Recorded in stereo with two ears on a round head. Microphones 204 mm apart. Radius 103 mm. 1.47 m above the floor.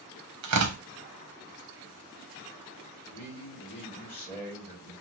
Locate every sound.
0.4 s tearing paper: 80° right, 1.0 m
3.1 s a man speaking: 10° left (ahead or behind), 1.9 m